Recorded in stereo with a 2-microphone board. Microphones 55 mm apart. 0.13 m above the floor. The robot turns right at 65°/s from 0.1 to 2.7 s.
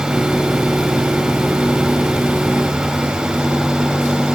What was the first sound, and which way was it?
Only background noise.